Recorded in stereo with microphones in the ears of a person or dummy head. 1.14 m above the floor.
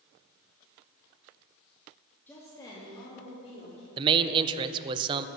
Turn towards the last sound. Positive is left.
turn(degrees=-25)  # may be behind; listen again after turning